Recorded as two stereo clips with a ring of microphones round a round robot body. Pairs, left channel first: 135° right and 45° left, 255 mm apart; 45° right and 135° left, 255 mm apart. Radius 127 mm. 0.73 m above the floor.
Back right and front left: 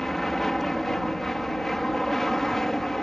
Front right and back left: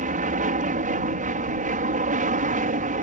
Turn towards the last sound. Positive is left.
turn(degrees=140)